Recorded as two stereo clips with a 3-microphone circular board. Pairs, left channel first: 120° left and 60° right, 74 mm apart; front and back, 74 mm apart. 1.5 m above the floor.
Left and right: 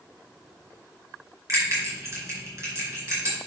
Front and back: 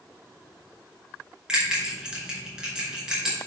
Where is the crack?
I don't hear a crack.